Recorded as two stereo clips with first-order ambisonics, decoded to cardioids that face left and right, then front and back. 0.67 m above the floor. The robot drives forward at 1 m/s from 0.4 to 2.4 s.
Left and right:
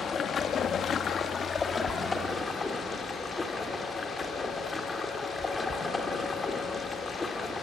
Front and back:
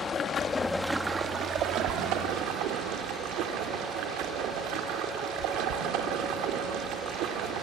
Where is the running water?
45° left, 1.0 m; by 7.6 s 165° left, 1.8 m.